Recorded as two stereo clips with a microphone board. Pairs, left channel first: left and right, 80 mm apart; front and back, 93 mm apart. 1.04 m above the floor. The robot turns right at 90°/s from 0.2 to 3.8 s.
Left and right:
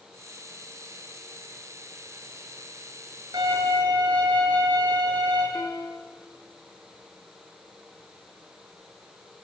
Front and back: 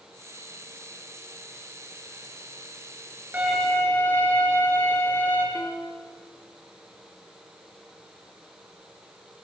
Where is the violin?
110° right, 8.5 m; by 5.5 s 70° right, 8.5 m.